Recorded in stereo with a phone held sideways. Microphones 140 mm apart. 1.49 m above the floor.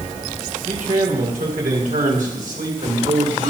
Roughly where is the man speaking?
Right.